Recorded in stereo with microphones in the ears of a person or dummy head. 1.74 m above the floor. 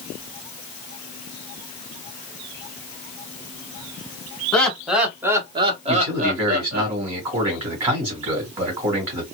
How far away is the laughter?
About 1.2 m.